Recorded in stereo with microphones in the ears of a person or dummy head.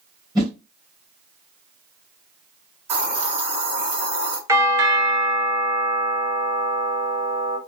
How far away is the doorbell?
About 0.5 m.